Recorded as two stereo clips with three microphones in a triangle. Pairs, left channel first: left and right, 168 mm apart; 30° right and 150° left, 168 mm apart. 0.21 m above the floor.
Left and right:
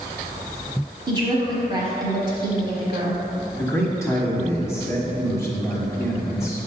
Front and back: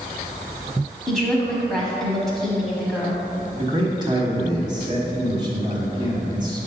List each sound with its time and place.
1.1 s a woman speaking: 115° right, 1.3 m
3.5 s a man speaking: 140° left, 1.2 m